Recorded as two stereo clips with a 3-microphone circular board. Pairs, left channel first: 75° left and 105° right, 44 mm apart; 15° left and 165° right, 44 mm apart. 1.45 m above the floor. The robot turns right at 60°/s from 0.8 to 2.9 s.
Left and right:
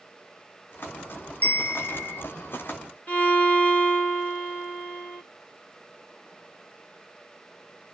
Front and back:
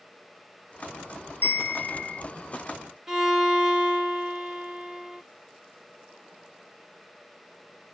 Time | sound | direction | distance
1.4 | a bell | 25° left | 3 m
3.1 | a violin | 115° left | 2.5 m